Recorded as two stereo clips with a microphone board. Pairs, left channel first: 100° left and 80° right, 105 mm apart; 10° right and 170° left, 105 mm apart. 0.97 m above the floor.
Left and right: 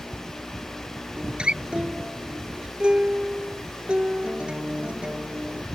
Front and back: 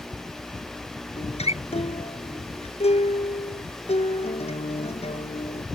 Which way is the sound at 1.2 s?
Straight ahead.